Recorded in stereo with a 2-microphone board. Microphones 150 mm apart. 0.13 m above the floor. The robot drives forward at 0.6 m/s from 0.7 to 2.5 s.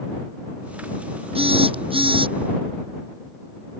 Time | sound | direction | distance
1.4 | a phone buzzing | 40° right (ahead or behind) | ?